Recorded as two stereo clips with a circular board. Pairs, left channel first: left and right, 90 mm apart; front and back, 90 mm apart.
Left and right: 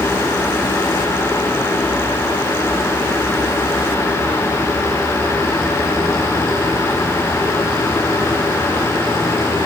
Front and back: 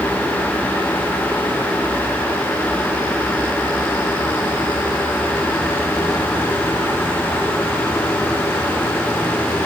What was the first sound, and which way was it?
Only background noise.